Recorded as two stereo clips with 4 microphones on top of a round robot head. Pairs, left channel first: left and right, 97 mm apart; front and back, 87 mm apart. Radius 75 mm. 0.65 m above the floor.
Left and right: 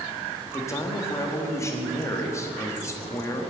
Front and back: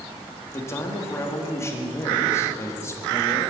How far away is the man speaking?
About 1.3 m.